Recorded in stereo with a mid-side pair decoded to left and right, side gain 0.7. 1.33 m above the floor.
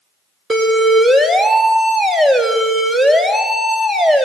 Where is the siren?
20° right, 3.5 m.